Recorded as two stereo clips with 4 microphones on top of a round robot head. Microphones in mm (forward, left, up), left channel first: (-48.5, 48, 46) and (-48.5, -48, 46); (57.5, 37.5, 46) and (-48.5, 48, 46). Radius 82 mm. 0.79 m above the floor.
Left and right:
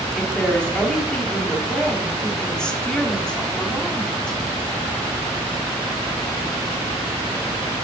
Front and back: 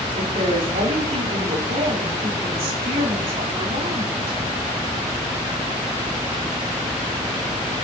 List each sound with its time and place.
0.1 s a woman speaking: 170° left, 2.5 m